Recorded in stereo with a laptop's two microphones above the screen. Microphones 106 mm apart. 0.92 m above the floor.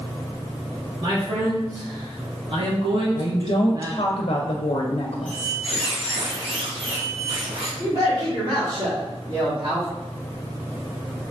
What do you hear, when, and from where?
1.0 s a man speaking: 45° right (ahead or behind), 1.6 m; by 4.1 s 25° right (ahead or behind), 0.8 m
3.1 s a woman speaking: 60° left (ahead or behind), 0.5 m
5.3 s a squeak: 60° right (ahead or behind), 1.0 m
7.8 s a man speaking: 65° right (ahead or behind), 1.8 m